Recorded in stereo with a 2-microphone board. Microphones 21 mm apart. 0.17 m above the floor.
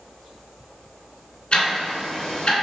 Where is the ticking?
45° left (ahead or behind), 1.6 m.